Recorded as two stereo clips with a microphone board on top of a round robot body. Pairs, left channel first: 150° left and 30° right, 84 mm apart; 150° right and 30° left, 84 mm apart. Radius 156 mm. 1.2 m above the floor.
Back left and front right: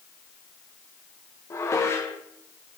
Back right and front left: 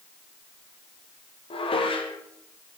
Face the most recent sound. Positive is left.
turn(degrees=-150)